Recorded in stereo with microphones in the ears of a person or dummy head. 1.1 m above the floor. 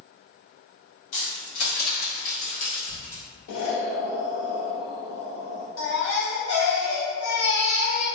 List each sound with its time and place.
1.1 s keys jangling: 75° left (ahead or behind), 1.2 m; by 3.2 s 25° left (ahead or behind), 1.3 m
3.5 s an explosion: 80° left, 0.6 m
5.8 s a baby crying: 80° left, 0.6 m